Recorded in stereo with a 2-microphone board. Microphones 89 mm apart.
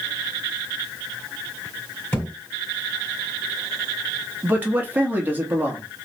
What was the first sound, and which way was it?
A thud, 20° left (ahead or behind).